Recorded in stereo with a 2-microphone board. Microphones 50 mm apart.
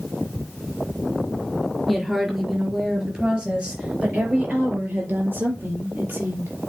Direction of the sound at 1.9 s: Centre (ahead or behind).